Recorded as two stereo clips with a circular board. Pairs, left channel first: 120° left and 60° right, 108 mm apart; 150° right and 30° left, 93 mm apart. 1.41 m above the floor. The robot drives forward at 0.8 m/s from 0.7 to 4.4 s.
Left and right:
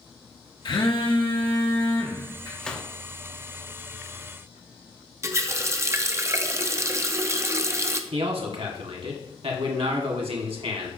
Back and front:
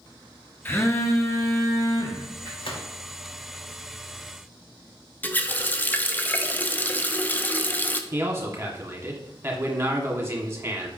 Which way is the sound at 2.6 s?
160° right.